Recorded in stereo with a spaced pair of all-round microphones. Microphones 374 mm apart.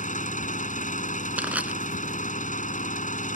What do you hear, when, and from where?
0.0 s an engine running: 20° left (ahead or behind)
1.4 s crushing: 5° right (ahead or behind)